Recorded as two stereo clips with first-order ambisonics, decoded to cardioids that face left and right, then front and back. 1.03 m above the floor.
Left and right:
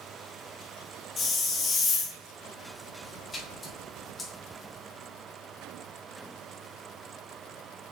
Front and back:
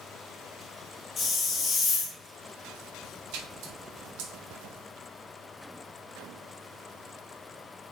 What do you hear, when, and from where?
1.2 s a hiss: 45° left, 0.7 m
3.3 s a splash: 165° left, 0.8 m